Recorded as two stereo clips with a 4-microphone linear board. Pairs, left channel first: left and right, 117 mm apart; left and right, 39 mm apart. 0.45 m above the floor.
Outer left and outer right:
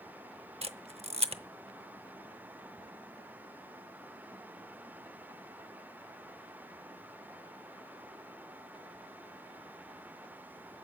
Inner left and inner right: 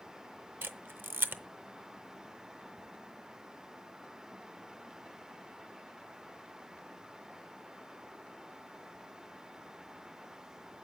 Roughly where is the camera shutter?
Right.